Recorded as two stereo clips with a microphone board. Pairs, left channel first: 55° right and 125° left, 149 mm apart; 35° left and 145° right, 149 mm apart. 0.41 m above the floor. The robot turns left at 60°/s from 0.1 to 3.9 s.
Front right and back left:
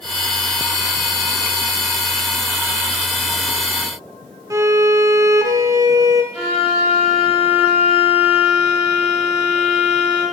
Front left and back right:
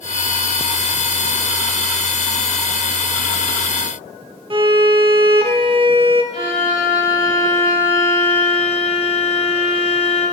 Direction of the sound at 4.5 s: Straight behind.